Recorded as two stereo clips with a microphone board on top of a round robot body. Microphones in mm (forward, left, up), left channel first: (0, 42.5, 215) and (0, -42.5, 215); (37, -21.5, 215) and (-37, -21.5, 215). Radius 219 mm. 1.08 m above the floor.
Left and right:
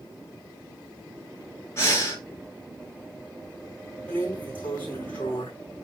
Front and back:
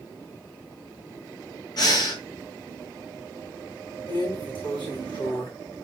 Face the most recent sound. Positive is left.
turn(degrees=20)